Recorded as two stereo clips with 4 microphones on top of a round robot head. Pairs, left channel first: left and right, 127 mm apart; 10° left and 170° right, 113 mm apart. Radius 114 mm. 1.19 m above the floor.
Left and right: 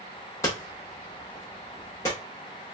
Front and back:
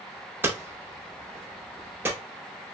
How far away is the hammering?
About 0.5 m.